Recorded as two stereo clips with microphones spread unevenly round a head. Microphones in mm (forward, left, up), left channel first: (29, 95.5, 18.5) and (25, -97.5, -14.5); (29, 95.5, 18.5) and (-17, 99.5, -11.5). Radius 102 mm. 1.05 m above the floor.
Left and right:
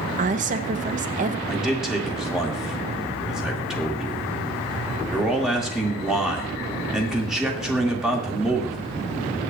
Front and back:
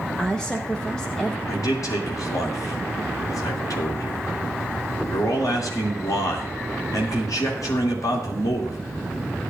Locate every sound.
0.2 s a woman speaking: 115° right, 0.9 m
1.5 s a man speaking: 5° right, 2.5 m